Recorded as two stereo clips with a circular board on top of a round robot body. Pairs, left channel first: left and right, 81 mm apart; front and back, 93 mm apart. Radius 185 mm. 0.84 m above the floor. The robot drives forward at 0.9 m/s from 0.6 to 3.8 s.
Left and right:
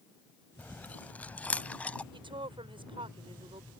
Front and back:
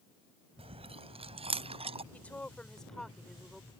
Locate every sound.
0.6 s chewing: 165° left
2.1 s a woman speaking: 75° right; by 3.7 s 95° right